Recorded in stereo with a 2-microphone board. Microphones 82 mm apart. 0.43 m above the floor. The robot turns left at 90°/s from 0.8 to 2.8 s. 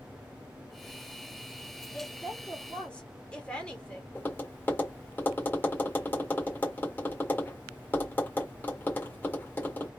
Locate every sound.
1.9 s a woman speaking: 15° left (ahead or behind), 1.2 m
4.2 s tapping: 25° left (ahead or behind), 1.4 m